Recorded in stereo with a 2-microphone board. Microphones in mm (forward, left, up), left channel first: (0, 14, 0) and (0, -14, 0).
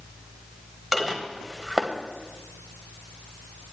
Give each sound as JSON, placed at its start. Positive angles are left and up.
{"t": 0.9, "sound": "dishes clattering", "side_deg": -10, "distance_m": 1.1}